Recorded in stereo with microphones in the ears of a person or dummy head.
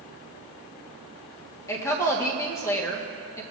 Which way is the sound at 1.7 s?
15° left (ahead or behind).